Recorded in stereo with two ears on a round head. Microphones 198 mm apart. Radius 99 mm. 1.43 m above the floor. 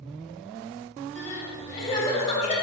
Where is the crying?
30° left (ahead or behind), 3 m.